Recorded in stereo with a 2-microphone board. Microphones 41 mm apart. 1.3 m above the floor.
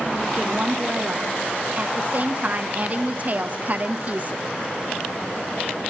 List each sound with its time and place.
0.4 s a woman speaking: 40° right (ahead or behind), 1.3 m